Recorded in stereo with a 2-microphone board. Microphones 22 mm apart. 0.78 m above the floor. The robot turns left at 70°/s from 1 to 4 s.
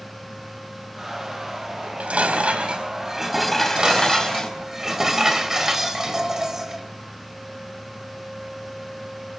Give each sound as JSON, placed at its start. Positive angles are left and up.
{"t": 1.8, "sound": "dishes clattering", "azimuth_deg": -65, "distance_m": 3.0}
{"t": 3.5, "sound": "dishes clattering", "azimuth_deg": -125, "distance_m": 2.0}